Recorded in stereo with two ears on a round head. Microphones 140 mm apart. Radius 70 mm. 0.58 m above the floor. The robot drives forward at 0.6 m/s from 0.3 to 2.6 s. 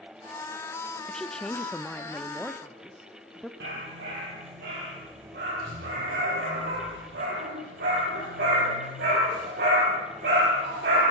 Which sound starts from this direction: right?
A dog barking, at 3.6 s.